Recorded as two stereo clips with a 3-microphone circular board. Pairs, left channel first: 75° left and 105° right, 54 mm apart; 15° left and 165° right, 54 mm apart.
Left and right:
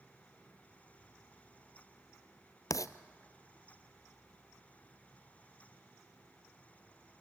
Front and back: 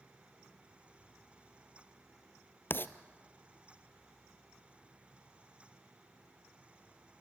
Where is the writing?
65° left, 0.7 m.